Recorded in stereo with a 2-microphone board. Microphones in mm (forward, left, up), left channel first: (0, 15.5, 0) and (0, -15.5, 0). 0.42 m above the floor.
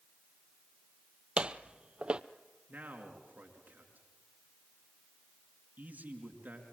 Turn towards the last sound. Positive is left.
turn(degrees=-70)  # may be behind; listen again after turning